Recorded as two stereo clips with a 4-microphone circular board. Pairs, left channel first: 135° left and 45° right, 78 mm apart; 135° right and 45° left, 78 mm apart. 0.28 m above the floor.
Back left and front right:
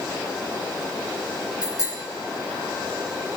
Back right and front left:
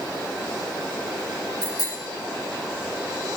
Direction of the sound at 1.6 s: 175° right.